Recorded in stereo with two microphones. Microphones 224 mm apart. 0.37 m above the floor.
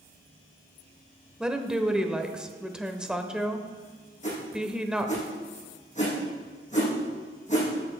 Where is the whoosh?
35° left (ahead or behind), 5 m.